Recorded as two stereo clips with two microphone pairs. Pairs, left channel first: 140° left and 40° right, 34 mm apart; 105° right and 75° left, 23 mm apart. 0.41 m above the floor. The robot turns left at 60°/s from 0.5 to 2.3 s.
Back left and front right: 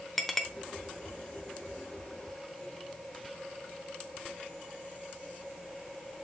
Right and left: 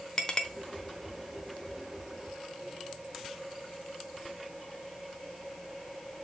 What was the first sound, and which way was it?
A clink, 140° right.